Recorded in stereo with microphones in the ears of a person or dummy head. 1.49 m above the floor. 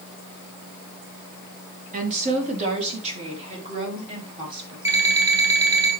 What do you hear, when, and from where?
1.9 s a woman speaking: 40° right (ahead or behind), 2.5 m; by 4.8 s 25° right (ahead or behind), 4.5 m
4.8 s an alarm clock: 15° right (ahead or behind), 4 m